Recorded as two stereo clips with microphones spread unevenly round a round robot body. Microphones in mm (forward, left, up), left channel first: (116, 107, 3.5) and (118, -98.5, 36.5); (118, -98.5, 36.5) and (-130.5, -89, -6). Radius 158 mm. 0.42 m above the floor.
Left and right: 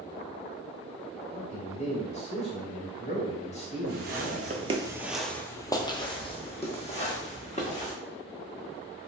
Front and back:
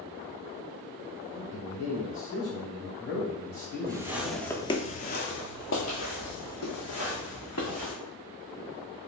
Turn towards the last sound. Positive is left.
turn(degrees=35)